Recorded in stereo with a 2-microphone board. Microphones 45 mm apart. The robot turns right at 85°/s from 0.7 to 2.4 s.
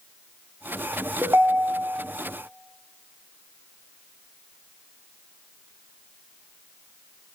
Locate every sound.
1.2 s a ringtone: 140° right, 0.7 m; by 2.0 s 70° right, 0.7 m